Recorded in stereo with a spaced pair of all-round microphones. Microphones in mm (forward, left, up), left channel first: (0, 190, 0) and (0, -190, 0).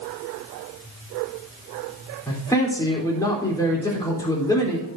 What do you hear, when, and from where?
2.3 s a man speaking: 10° left (ahead or behind), 3.5 m